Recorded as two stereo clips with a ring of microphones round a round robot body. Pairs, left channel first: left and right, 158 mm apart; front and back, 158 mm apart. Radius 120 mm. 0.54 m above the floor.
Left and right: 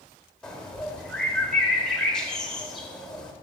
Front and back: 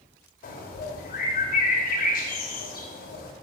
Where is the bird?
5° left, 1.9 m.